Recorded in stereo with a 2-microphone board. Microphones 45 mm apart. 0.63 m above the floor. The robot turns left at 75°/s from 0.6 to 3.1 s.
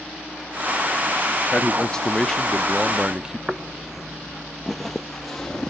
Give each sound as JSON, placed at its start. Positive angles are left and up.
{"t": 1.5, "sound": "a man speaking", "side_deg": 25, "distance_m": 0.6}
{"t": 3.5, "sound": "footsteps", "side_deg": -15, "distance_m": 0.6}